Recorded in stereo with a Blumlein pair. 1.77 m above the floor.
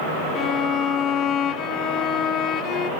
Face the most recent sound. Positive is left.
turn(degrees=30)